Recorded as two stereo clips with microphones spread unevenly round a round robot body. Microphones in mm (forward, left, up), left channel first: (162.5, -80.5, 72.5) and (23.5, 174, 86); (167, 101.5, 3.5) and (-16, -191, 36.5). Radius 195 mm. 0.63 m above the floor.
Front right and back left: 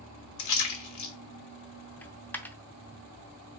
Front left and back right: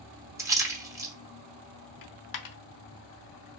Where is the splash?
40° right, 1.2 m.